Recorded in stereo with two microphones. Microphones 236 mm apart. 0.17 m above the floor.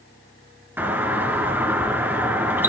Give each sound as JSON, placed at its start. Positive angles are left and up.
{"t": 0.8, "sound": "a doorbell", "side_deg": -10, "distance_m": 3.0}